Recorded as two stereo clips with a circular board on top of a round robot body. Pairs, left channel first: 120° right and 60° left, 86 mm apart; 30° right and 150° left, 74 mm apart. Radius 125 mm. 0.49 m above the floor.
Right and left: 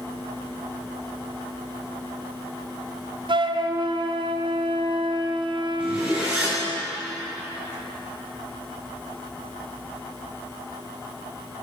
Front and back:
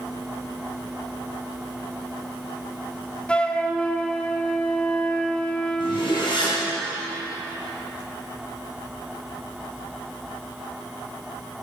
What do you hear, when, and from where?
3.3 s a flute: 45° left, 0.8 m
5.8 s a zipper: 10° right, 5 m